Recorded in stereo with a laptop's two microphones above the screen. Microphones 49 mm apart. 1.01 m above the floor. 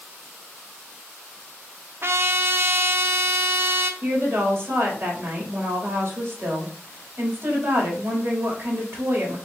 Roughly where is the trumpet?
Right.